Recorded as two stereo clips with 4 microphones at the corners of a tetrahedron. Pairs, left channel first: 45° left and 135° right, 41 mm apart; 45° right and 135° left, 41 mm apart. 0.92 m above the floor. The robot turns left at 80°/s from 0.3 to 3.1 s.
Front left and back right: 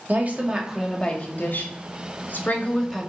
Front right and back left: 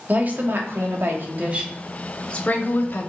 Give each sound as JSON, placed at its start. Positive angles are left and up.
{"t": 0.1, "sound": "a woman speaking", "azimuth_deg": 175, "distance_m": 2.0}